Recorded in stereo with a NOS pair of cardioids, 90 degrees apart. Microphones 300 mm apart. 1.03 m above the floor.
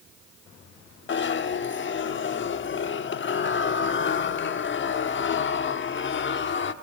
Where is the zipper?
40° left, 1.1 m.